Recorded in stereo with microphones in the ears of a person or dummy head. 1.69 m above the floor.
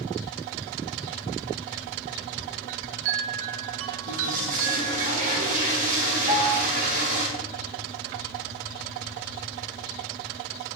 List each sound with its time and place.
2.7 s a chime: 75° right (ahead or behind), 1.6 m
4.1 s a toilet flushing: 45° right (ahead or behind), 6.5 m
6.3 s a piano: 25° right (ahead or behind), 2.0 m